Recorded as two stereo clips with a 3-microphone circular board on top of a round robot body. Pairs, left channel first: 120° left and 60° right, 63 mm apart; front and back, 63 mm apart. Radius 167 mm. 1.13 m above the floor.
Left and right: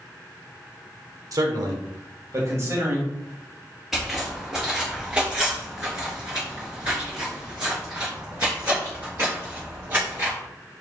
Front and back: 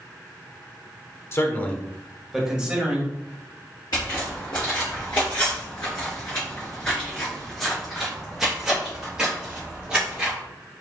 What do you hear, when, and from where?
1.3 s a man speaking: 45° right, 1.0 m; by 3.1 s 110° right, 2 m
3.9 s footsteps: 25° left, 1.8 m; by 10.3 s 110° right, 2.5 m